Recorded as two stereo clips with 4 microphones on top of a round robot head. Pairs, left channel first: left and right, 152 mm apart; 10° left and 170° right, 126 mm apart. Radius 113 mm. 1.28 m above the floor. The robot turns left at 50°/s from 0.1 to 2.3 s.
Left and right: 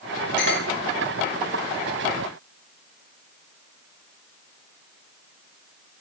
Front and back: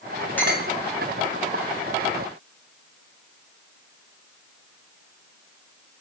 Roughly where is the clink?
Left.